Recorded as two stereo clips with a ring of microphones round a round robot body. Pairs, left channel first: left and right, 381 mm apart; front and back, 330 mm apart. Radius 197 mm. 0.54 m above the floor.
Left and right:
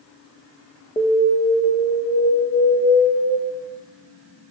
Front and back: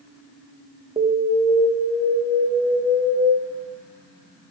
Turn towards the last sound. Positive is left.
turn(degrees=150)